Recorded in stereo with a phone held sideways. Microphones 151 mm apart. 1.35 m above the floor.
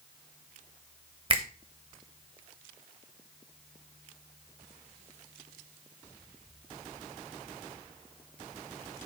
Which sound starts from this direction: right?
A finger snap, at 1.3 s.